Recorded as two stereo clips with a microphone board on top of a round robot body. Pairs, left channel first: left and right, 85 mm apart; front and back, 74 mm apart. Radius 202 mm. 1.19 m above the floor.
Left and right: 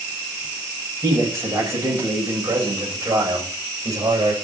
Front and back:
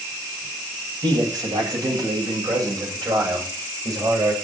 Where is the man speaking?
155° right, 8 m; by 4.3 s 140° right, 6.5 m.